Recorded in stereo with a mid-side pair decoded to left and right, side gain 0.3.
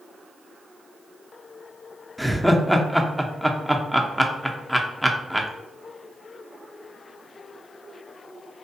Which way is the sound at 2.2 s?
Straight ahead.